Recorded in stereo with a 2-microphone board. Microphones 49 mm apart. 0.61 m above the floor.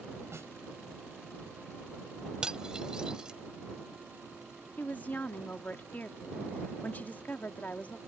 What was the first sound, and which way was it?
A snare drum, 60° right (ahead or behind).